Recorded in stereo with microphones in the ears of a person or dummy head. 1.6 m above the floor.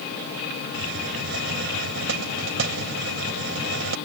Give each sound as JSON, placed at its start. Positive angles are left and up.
{"t": 0.7, "sound": "a hiss", "side_deg": -70}